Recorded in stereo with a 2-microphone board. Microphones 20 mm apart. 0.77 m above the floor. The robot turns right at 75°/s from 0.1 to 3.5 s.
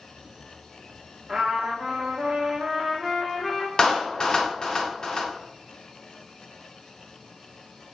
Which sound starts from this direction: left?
A clap, at 3.8 s.